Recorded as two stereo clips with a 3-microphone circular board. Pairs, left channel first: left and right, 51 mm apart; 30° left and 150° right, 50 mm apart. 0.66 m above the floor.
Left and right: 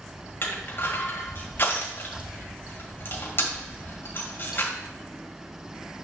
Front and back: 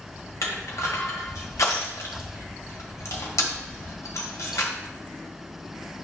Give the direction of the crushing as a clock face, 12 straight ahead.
11 o'clock.